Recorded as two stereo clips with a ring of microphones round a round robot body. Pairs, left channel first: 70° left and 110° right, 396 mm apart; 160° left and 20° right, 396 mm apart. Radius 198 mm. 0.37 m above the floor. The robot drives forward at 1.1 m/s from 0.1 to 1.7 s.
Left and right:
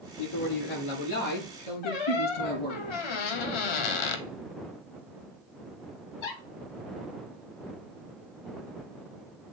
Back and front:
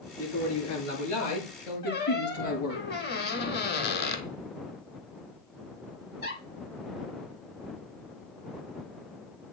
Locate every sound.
0.2 s a man speaking: 100° left, 6 m; by 2.8 s 115° left, 6 m
1.8 s a squeak: 90° left, 1.0 m